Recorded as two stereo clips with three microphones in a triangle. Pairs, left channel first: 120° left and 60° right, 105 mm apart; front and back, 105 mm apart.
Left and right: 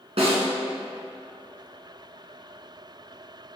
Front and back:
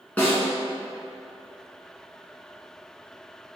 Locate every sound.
0.2 s a snare drum: 75° right, 2.5 m